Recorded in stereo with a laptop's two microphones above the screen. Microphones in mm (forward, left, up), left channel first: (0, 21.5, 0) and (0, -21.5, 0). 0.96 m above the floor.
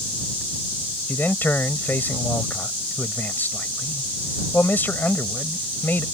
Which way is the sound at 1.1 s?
50° left (ahead or behind).